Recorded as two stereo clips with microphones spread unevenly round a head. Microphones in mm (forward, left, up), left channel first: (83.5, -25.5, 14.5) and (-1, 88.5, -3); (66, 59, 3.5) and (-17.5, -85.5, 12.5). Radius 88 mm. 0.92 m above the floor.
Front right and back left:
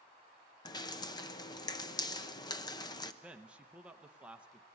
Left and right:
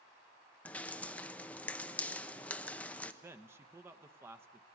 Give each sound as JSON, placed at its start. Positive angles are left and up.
{"t": 0.7, "sound": "dripping", "azimuth_deg": -10, "distance_m": 0.9}
{"t": 3.2, "sound": "a man speaking", "azimuth_deg": 175, "distance_m": 0.9}